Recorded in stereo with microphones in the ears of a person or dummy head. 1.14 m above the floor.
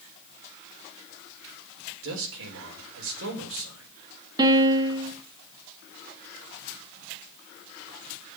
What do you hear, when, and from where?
2.0 s a man speaking: 75° right (ahead or behind), 4.5 m
4.4 s a piano: 20° right (ahead or behind), 1.4 m